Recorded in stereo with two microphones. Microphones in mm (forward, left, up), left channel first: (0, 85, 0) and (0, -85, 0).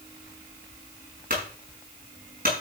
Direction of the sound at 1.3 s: 55° right (ahead or behind).